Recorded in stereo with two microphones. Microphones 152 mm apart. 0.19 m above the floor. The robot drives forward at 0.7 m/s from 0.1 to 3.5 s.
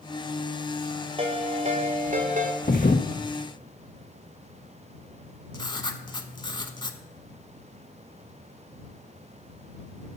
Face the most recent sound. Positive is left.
turn(degrees=30)  # may be behind; listen again after turning